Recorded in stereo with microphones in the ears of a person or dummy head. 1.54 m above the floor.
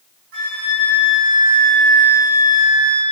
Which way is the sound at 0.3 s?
60° right (ahead or behind).